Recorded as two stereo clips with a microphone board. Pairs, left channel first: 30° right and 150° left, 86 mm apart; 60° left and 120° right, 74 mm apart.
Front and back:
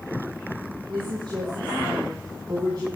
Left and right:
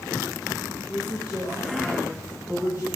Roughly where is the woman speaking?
Behind.